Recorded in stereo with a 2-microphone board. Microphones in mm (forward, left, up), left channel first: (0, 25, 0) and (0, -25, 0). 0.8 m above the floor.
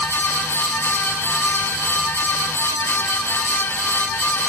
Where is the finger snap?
I don't hear a finger snap.